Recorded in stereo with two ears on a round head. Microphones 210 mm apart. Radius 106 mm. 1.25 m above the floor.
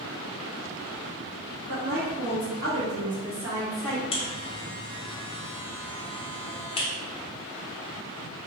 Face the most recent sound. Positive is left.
turn(degrees=25)  # may be behind; listen again after turning